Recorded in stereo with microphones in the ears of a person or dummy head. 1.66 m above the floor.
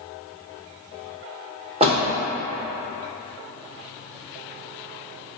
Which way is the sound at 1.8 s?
35° right (ahead or behind).